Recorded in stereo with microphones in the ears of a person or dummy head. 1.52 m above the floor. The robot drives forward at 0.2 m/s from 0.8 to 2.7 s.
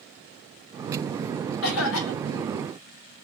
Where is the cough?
65° left (ahead or behind), 0.9 m; by 2.6 s 70° left (ahead or behind), 0.9 m.